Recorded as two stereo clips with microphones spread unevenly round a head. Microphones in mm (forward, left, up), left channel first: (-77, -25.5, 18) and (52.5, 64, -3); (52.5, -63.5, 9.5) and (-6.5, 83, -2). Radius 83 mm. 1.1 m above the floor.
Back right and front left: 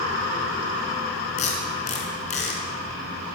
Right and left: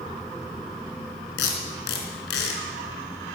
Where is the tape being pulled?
95° right, 4 m.